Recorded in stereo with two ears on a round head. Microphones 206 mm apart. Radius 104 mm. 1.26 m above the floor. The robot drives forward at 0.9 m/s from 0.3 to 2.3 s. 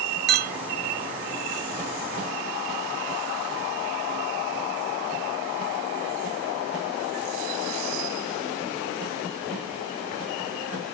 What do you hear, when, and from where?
0.3 s a clink: 50° right (ahead or behind); by 0.6 s 35° right (ahead or behind)